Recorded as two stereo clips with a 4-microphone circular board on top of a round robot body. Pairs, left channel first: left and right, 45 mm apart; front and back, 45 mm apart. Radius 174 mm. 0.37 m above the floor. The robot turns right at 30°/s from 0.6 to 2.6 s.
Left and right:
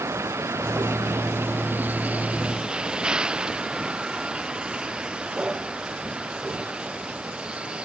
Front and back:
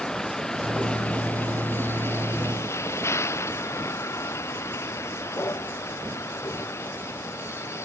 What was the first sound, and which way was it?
A vehicle, 80° right.